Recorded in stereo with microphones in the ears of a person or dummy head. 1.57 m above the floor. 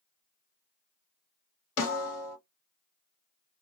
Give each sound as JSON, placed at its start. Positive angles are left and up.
{"t": 1.8, "sound": "a snare drum", "side_deg": 60, "distance_m": 1.9}